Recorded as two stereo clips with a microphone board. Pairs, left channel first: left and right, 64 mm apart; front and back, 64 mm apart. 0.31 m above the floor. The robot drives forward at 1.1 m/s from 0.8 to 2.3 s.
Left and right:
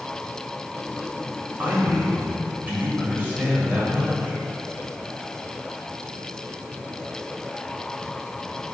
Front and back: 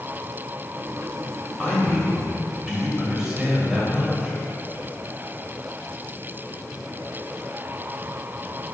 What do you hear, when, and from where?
1.6 s a man speaking: 60° right, 1.8 m; by 4.4 s 110° right, 1.7 m